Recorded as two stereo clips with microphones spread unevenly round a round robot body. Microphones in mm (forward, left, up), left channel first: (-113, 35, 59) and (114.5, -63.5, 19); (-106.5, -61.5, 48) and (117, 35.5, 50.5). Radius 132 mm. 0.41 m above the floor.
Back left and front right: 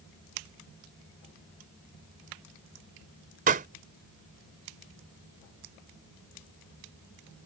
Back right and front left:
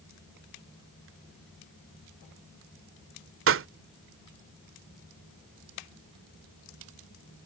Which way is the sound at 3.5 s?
20° left.